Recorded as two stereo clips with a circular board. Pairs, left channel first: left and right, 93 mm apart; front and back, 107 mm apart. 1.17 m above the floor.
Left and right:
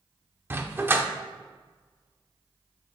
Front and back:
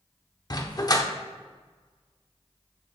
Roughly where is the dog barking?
Ahead right.